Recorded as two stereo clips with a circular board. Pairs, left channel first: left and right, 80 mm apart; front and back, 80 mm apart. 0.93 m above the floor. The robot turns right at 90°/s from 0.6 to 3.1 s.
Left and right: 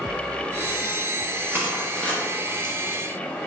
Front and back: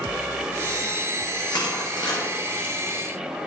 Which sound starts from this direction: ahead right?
Crushing, at 1.5 s.